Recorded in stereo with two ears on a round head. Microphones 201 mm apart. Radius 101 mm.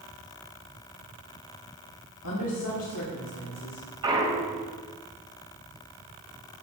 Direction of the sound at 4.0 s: 20° right (ahead or behind).